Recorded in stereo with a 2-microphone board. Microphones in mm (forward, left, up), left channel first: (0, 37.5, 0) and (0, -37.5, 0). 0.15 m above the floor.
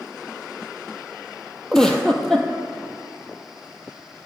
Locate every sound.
1.7 s a giggle: 5° left (ahead or behind), 0.7 m